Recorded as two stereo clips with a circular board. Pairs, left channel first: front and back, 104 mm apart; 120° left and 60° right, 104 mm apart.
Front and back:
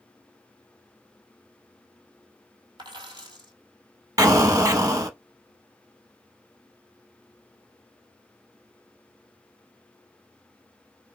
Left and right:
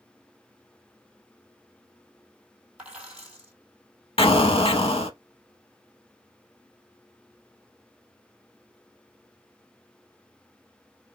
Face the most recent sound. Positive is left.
turn(degrees=130)